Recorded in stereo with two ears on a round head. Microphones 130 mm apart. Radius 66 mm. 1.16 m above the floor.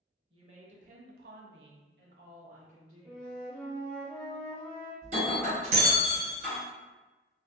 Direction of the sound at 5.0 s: 50° right (ahead or behind).